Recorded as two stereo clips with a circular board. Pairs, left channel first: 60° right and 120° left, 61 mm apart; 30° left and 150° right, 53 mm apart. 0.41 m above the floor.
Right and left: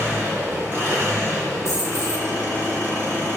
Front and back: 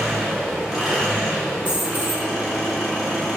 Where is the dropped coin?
90° right, 0.7 m.